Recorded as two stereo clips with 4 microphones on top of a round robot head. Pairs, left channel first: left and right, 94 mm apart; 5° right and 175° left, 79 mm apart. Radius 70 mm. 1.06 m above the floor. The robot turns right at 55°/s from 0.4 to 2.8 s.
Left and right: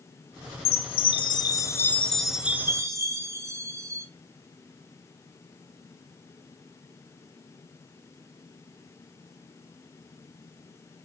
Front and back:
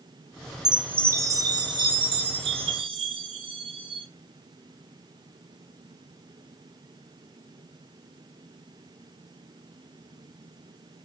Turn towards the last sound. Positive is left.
turn(degrees=-150)